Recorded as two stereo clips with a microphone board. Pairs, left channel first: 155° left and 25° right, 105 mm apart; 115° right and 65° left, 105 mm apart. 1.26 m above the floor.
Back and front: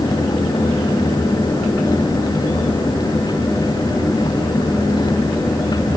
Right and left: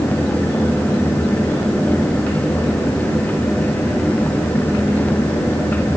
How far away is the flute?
I don't hear a flute.